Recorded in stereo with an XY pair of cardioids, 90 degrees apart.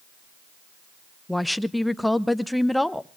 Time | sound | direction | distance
1.3 | a woman speaking | 5° left | 0.7 m